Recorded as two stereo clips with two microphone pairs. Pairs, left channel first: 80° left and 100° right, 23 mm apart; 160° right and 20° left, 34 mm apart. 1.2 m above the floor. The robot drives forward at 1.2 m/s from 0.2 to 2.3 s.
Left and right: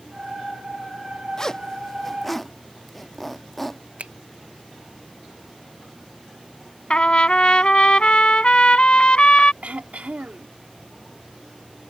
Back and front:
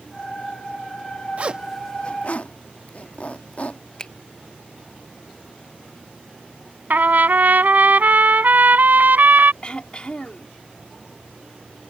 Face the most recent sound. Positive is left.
turn(degrees=-105)